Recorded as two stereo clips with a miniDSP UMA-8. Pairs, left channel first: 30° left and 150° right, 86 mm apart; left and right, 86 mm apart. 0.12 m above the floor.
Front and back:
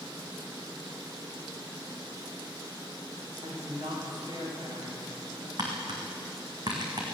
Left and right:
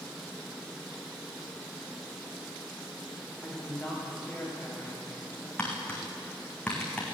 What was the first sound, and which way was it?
A woman speaking, 175° left.